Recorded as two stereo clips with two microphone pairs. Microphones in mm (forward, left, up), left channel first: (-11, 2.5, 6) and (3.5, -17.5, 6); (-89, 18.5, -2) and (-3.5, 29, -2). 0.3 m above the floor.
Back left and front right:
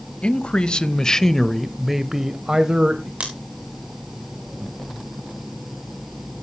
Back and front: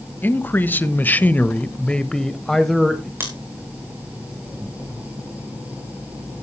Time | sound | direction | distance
0.2 | a man speaking | 130° left | 1.3 m
3.2 | scissors | 55° right | 4.5 m